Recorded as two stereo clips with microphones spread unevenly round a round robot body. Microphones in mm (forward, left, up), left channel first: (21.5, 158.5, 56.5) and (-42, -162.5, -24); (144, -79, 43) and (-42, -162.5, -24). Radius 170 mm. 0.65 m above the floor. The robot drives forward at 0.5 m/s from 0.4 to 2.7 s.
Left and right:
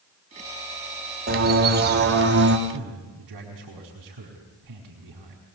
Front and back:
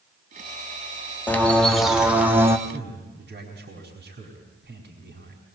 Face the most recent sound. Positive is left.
turn(degrees=-130)